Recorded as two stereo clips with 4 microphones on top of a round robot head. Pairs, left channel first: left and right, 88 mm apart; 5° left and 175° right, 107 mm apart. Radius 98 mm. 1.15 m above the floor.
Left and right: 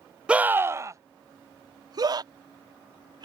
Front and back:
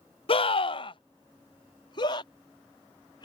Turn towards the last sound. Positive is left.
turn(degrees=-50)